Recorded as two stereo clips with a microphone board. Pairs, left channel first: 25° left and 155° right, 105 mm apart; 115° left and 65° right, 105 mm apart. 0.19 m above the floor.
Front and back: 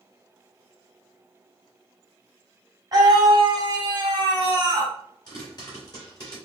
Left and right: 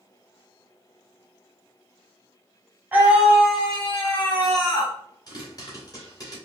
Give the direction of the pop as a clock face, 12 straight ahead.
10 o'clock.